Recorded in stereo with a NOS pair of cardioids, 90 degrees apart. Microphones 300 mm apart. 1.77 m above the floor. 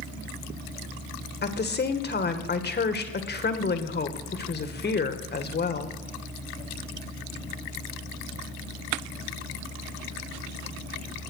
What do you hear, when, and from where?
1.4 s a woman speaking: 35° left, 2.0 m